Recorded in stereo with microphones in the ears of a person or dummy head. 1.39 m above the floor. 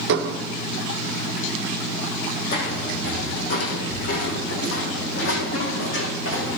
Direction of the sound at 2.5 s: 55° left (ahead or behind).